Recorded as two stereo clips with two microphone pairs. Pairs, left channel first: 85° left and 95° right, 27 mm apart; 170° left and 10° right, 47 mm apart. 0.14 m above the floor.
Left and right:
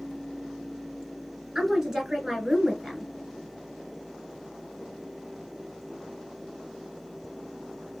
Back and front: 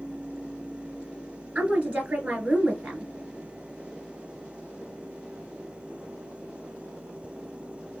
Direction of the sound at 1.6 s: 50° right.